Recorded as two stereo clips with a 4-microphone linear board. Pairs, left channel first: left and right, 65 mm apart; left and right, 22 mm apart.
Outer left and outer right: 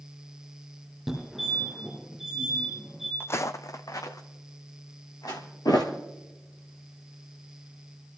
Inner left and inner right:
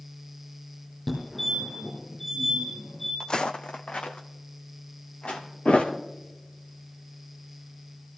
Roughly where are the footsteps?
Left.